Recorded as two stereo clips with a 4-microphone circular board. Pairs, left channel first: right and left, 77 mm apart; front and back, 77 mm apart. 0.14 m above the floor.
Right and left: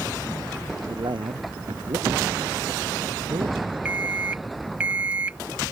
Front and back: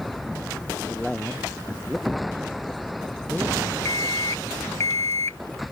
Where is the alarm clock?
25° left.